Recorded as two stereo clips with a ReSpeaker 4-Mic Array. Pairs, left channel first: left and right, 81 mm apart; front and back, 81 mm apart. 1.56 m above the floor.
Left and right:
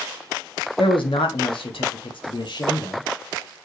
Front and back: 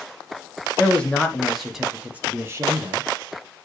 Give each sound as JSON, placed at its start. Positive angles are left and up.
{"t": 0.8, "sound": "a man speaking", "azimuth_deg": 75, "distance_m": 1.6}